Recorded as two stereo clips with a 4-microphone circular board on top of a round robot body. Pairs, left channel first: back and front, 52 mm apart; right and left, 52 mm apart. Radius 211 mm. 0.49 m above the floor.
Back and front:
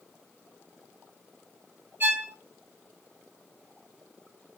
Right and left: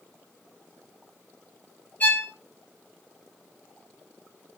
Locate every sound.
2.0 s a violin: 40° right, 0.9 m